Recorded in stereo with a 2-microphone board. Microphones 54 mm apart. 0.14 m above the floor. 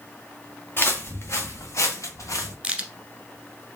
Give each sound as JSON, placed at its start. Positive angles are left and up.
{"t": 0.8, "sound": "footsteps", "side_deg": 40, "distance_m": 1.3}
{"t": 2.6, "sound": "a crack", "side_deg": -20, "distance_m": 1.0}